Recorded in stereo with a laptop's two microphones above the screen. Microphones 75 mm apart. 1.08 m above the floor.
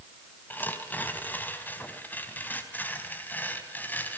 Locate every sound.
0.5 s tearing paper: 25° left (ahead or behind), 3.5 m